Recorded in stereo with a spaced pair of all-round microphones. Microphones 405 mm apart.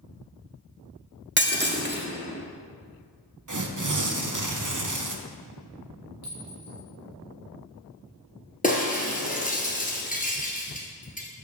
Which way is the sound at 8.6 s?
20° left (ahead or behind).